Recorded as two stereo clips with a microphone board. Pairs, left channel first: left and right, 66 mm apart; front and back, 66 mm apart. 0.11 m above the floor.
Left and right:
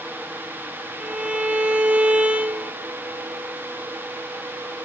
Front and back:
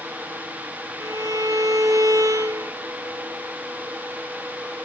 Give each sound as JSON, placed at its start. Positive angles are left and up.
{"t": 1.0, "sound": "a violin", "azimuth_deg": -155, "distance_m": 0.6}